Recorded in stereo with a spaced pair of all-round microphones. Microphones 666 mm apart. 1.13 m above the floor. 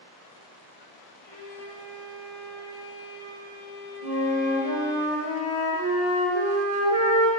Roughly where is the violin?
Centre.